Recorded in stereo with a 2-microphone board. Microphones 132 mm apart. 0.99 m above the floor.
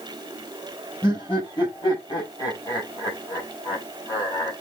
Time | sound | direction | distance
1.0 | laughter | 35° left (ahead or behind) | 6.5 m